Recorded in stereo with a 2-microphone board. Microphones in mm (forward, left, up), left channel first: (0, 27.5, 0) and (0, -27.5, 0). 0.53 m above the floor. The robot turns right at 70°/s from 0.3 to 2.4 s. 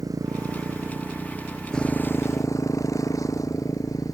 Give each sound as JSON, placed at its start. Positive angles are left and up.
{"t": 0.0, "sound": "a motorcycle", "side_deg": -80}